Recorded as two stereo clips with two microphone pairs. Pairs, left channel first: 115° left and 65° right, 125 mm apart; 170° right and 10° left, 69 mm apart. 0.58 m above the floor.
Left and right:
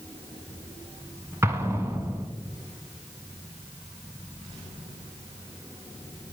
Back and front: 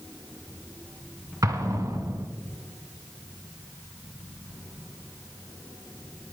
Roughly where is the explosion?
Ahead.